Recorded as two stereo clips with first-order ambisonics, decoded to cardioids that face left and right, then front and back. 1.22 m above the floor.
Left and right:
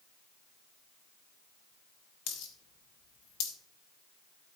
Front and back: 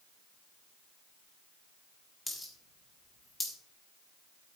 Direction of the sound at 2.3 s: 85° left.